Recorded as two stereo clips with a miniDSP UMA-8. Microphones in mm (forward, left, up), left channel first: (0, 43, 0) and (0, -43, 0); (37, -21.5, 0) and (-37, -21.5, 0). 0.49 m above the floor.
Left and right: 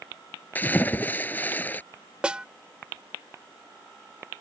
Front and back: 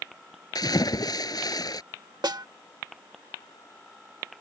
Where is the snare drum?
165° right.